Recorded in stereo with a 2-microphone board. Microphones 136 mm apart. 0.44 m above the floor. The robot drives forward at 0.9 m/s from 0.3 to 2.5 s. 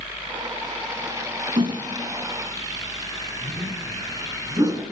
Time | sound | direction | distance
1.6 | a whoosh | 40° right (ahead or behind) | 1.7 m